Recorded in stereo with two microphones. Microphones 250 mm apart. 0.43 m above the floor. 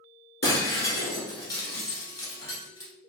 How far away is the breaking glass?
About 1.2 m.